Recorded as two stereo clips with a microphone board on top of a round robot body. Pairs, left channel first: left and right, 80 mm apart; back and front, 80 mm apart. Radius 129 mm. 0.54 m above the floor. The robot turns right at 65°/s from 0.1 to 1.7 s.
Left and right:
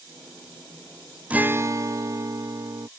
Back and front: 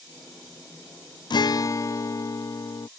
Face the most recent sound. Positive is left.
turn(degrees=-135)